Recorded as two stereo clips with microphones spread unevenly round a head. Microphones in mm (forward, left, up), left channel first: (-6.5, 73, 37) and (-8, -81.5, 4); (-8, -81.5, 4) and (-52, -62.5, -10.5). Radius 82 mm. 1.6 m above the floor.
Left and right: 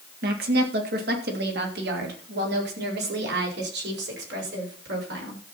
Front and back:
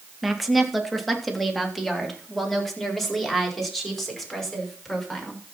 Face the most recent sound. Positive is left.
turn(degrees=-105)